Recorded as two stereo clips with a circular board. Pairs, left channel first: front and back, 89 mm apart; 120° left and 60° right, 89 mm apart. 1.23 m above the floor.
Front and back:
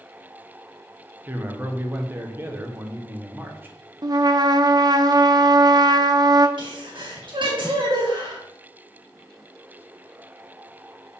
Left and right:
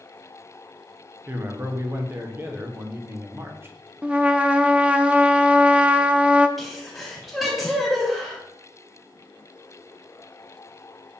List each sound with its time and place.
1.3 s a man speaking: 115° right, 1.0 m
4.0 s a trumpet: 135° right, 0.5 m
6.6 s a sneeze: 150° right, 2 m